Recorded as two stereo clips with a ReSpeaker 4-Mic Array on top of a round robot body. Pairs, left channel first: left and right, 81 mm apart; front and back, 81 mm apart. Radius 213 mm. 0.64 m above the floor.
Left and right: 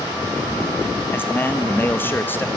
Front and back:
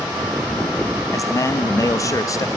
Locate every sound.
1.1 s a man speaking: 30° left, 1.6 m